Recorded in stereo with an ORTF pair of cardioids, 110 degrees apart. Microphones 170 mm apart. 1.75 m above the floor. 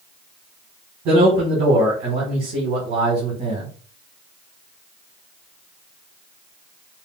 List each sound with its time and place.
1.1 s a man speaking: 65° right, 1.7 m